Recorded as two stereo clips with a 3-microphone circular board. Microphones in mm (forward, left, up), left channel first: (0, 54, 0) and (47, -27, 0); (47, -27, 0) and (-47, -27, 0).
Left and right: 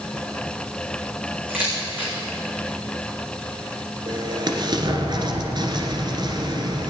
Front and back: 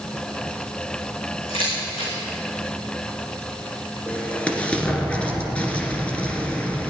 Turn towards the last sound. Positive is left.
turn(degrees=-75)